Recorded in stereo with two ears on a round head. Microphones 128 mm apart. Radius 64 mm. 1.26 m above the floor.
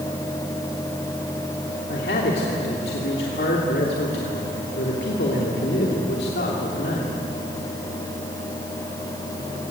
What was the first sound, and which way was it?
A man speaking, 75° left (ahead or behind).